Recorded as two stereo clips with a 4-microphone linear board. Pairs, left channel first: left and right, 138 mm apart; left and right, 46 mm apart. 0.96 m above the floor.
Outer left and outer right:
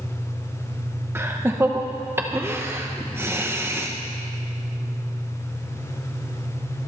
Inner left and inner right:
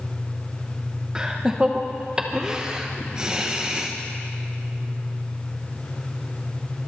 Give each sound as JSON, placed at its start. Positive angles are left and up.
{"t": 1.1, "sound": "laughter", "side_deg": -20, "distance_m": 0.9}